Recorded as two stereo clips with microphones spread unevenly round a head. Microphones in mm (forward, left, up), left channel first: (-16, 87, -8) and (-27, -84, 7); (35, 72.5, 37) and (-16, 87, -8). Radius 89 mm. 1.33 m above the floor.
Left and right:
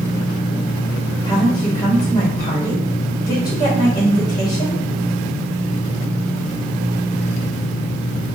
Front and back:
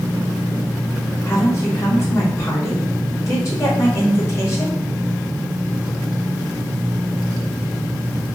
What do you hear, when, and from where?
1.3 s a woman speaking: 15° left, 1.4 m